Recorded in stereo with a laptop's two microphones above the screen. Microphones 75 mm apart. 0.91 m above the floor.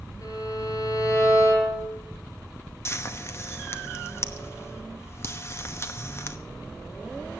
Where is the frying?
35° left (ahead or behind), 0.9 m.